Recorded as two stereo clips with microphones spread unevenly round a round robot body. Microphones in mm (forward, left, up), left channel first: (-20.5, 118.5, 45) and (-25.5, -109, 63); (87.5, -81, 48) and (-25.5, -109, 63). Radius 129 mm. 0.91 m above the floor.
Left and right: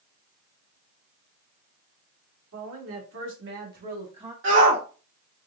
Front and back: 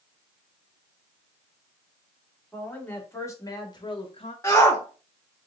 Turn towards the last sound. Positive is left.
turn(degrees=-50)